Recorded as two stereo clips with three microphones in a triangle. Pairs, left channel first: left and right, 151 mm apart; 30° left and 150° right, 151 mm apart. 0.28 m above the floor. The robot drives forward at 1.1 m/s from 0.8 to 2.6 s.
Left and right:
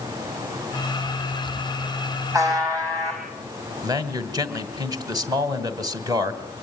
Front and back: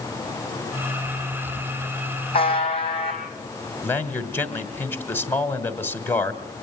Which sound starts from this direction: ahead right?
A man speaking, at 3.8 s.